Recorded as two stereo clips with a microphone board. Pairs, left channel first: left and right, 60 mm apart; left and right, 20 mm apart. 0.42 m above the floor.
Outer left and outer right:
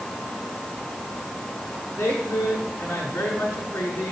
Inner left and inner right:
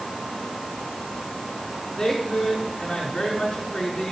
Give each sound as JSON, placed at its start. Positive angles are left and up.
{"t": 2.0, "sound": "a woman speaking", "side_deg": 25, "distance_m": 6.0}